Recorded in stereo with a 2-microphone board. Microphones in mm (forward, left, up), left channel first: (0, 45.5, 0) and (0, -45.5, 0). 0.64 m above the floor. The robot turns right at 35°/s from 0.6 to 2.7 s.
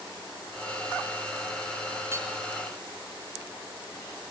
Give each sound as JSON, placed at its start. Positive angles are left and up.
{"t": 2.1, "sound": "hammering", "side_deg": -30, "distance_m": 3.0}